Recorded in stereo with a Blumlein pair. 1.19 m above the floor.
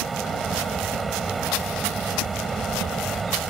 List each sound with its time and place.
0.0 s a fan: 10° right